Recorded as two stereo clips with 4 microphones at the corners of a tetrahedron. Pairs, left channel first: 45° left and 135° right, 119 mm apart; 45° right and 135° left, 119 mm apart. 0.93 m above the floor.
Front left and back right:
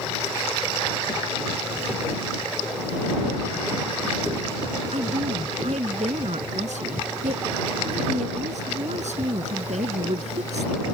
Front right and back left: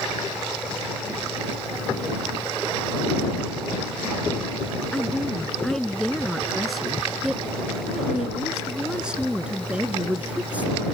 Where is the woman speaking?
130° right; by 10.8 s 145° right.